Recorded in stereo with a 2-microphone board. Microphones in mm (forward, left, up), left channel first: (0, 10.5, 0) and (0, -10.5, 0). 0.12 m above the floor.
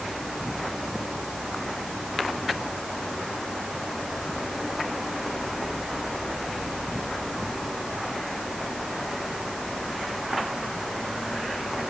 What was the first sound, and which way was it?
Only background noise.